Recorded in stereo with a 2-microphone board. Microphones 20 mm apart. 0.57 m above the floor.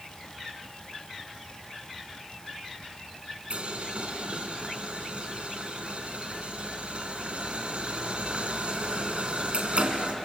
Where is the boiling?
65° right (ahead or behind), 3 m.